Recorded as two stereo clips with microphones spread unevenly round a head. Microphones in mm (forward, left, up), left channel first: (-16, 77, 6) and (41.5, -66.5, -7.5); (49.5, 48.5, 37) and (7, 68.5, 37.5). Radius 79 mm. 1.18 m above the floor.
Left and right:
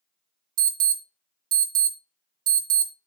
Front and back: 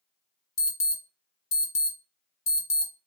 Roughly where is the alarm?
Ahead right.